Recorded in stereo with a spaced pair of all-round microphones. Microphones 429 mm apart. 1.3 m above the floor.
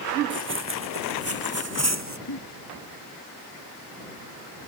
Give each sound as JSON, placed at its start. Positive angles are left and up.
{"t": 0.3, "sound": "running footsteps", "side_deg": -25}
{"t": 2.3, "sound": "a giggle", "side_deg": 65}